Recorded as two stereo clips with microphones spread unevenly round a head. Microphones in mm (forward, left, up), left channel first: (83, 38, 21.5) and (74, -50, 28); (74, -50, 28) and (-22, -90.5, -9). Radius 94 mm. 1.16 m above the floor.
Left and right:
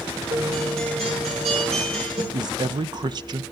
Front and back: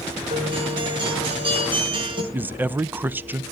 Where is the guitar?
115° right, 6 m.